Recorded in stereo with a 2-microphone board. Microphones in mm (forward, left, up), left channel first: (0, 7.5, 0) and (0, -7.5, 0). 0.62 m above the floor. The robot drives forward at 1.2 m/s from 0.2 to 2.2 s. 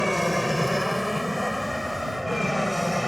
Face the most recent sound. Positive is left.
turn(degrees=-5)  # may be behind; listen again after turning